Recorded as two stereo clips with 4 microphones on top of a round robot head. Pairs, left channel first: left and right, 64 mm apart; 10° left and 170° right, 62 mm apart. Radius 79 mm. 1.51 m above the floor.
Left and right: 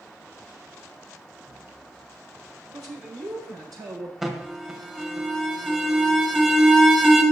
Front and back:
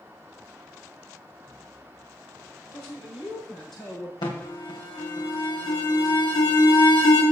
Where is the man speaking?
70° right, 6 m; by 4.1 s 75° right, 6.5 m.